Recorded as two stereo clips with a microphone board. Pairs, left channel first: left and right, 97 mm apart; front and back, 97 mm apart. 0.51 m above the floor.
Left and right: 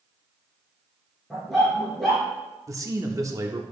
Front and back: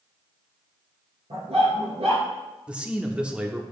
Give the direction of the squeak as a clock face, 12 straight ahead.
No squeak in this recording.